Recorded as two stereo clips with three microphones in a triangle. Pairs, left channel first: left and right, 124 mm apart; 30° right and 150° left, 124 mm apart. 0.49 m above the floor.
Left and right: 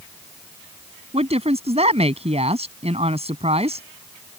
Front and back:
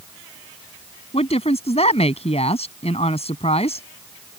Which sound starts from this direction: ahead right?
A woman speaking, at 1.1 s.